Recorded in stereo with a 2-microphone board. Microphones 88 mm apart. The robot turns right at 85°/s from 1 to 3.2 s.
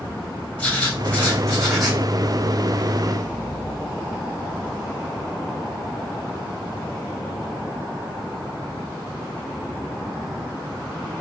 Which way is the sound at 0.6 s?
15° left (ahead or behind).